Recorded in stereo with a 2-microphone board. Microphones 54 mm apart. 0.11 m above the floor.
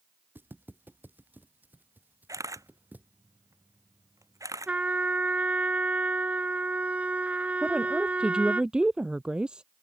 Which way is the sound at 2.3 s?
80° right.